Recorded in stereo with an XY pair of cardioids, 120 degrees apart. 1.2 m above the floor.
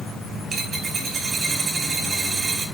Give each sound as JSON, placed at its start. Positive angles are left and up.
{"t": 0.5, "sound": "a dropped coin", "azimuth_deg": -45, "distance_m": 2.0}